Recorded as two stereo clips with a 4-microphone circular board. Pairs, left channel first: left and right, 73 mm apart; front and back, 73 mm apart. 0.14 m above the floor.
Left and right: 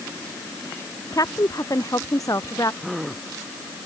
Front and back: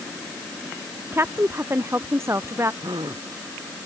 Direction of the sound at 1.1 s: 125° left.